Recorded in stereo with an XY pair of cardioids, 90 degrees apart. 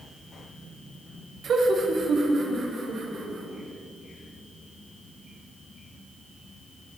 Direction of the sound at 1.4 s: 65° right.